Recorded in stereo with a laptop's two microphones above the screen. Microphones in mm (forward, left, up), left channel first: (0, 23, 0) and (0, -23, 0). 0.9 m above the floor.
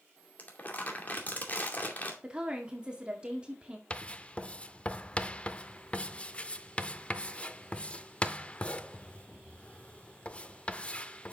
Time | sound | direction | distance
0.4 | crumpling | 40° left (ahead or behind) | 2.5 m
2.2 | a woman speaking | 20° right (ahead or behind) | 1.9 m
3.9 | writing | 25° left (ahead or behind) | 0.5 m